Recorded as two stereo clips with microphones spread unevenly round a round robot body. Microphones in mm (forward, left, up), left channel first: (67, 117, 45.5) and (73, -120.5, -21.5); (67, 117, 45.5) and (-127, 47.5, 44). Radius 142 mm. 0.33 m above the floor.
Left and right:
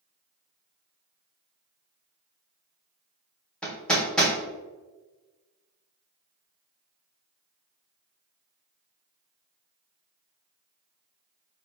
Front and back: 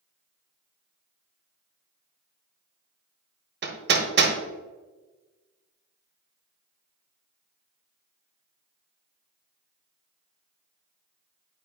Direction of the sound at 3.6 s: 170° right.